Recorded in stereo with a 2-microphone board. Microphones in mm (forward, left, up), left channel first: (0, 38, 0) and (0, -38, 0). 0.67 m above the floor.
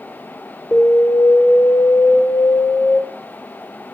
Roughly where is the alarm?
Centre.